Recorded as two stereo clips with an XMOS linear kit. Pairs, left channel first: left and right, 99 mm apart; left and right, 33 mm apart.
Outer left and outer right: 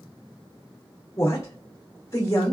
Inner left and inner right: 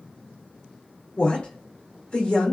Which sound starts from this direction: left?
A woman speaking, at 1.2 s.